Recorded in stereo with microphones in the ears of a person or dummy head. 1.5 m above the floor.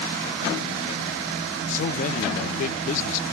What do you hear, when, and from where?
1.7 s a man speaking: 50° left (ahead or behind), 1.2 m